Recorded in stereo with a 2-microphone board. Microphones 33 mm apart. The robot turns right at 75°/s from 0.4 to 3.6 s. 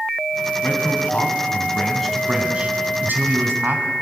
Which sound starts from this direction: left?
A man speaking, at 0.6 s.